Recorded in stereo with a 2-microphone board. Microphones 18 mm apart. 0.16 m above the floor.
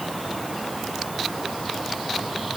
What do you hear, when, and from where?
Only background noise.